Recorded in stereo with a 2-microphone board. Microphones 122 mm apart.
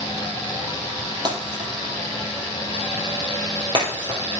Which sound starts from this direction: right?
Breaking glass, at 1.2 s.